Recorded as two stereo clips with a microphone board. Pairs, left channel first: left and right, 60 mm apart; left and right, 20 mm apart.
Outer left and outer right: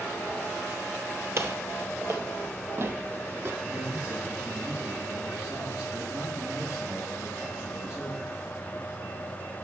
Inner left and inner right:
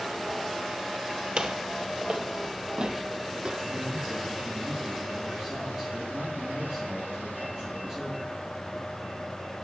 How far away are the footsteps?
About 1.2 m.